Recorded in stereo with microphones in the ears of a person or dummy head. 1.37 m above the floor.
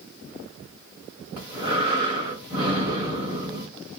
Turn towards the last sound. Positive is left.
turn(degrees=30)  # may be behind; listen again after turning